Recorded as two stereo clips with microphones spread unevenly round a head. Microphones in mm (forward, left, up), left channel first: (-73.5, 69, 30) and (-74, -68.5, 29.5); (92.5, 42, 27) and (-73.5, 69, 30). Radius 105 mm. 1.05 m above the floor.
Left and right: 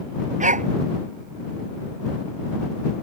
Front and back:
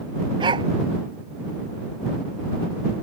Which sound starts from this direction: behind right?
A dog barking, at 0.4 s.